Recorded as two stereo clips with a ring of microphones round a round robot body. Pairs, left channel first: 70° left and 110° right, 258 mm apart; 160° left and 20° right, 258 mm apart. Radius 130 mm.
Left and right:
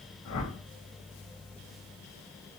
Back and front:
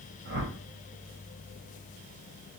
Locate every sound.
0.2 s a whoosh: 25° left, 3 m